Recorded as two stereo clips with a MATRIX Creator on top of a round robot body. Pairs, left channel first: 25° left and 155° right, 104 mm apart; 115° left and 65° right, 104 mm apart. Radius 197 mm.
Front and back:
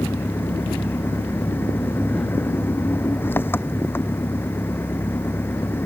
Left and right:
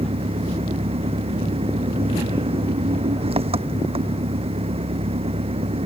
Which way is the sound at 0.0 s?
45° right.